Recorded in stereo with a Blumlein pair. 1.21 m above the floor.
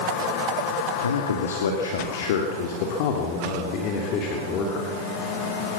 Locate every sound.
1.0 s a man speaking: 70° left, 2.5 m; by 5.0 s 30° left, 3.5 m